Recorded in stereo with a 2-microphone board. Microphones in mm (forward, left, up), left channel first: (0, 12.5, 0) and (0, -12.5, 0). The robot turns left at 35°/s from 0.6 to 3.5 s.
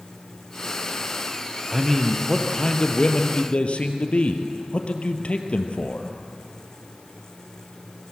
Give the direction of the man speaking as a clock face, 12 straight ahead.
6 o'clock.